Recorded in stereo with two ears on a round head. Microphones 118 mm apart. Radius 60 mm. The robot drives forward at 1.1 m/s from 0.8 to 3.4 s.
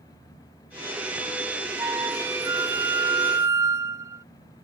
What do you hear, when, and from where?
1.8 s a flute: 15° right (ahead or behind); by 4.2 s 20° right (ahead or behind)